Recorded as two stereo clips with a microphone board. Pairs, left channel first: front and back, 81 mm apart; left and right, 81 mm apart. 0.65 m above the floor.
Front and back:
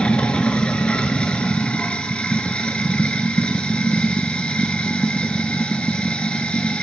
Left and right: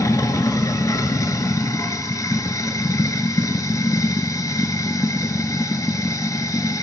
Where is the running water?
70° left, 0.8 m.